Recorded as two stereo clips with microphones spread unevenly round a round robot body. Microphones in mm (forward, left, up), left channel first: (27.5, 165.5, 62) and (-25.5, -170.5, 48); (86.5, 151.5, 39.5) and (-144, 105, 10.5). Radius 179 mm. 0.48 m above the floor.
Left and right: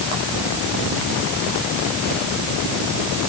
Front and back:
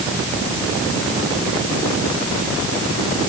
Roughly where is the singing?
I don't hear singing.